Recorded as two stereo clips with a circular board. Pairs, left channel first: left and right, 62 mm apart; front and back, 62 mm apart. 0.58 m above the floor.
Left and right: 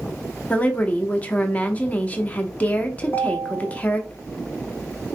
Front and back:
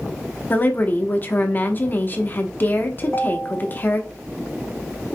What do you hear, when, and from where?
0.5 s a woman speaking: 40° left, 0.7 m
3.0 s a ringtone: 45° left, 2 m